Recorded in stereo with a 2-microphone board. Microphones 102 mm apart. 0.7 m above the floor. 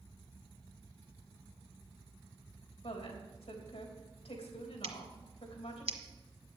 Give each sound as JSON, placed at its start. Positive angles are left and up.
{"t": 2.8, "sound": "a woman speaking", "side_deg": 75, "distance_m": 3.5}
{"t": 4.8, "sound": "scissors", "side_deg": -75, "distance_m": 1.5}